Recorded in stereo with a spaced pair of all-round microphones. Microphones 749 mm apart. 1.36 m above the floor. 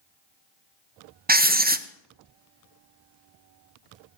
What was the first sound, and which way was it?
Writing, 15° right (ahead or behind).